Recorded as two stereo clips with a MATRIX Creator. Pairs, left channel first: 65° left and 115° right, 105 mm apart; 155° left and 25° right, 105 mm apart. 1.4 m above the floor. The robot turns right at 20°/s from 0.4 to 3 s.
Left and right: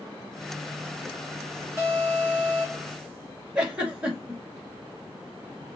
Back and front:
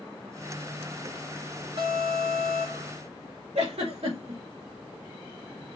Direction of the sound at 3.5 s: 35° right.